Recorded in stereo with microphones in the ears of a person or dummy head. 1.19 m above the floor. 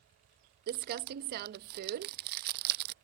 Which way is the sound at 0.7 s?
55° right (ahead or behind).